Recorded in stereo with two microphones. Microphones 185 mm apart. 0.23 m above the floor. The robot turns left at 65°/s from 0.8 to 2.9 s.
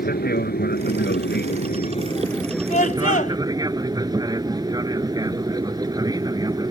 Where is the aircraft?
115° left; by 6.7 s 20° right.